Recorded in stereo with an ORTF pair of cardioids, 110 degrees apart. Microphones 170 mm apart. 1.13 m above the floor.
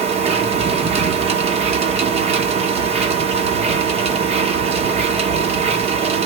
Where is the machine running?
40° right, 0.8 m.